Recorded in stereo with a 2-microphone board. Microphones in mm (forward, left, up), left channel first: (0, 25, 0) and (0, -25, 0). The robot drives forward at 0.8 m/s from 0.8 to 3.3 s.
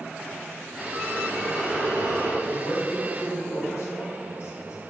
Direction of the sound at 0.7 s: 30° right (ahead or behind).